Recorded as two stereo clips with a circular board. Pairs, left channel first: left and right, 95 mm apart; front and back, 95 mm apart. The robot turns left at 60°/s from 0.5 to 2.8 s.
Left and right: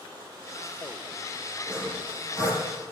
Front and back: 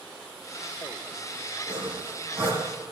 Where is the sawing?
160° left, 7.5 m; by 2.6 s 100° left, 7.5 m.